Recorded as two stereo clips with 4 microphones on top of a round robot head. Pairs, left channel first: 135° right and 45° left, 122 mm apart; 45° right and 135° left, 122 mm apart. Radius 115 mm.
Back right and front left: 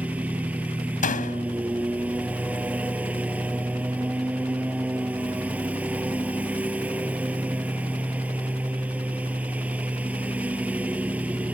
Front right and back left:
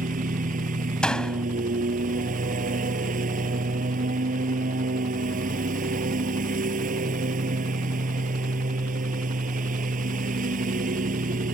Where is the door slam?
130° right.